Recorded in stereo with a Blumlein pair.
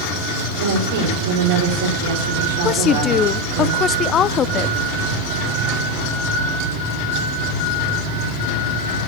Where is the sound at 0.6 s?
50° right, 4 m.